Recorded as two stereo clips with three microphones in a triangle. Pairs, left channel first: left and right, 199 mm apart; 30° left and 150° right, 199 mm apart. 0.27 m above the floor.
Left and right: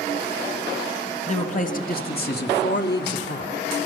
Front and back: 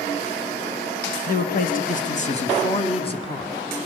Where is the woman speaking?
50° left, 1.7 m; by 3.5 s 95° left, 2.5 m.